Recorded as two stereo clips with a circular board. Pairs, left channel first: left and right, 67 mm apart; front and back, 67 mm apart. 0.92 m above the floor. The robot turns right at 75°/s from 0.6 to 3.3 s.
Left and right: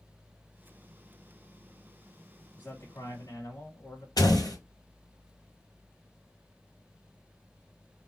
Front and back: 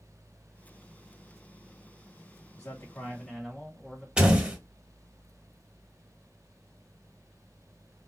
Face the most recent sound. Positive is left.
turn(degrees=105)